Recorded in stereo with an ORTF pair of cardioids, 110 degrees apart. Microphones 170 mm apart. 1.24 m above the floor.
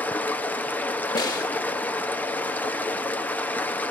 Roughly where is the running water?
Ahead.